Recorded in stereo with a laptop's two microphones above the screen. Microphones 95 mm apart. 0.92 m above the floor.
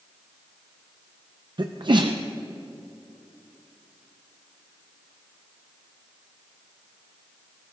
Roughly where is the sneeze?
Right.